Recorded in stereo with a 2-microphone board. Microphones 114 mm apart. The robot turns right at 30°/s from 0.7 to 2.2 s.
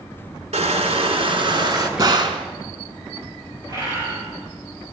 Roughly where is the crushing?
Right.